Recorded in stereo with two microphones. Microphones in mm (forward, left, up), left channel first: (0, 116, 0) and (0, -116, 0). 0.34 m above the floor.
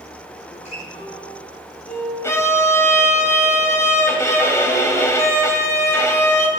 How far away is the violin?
About 2 m.